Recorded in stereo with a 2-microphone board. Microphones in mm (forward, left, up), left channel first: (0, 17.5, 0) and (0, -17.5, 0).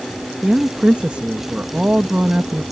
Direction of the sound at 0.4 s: 35° right (ahead or behind).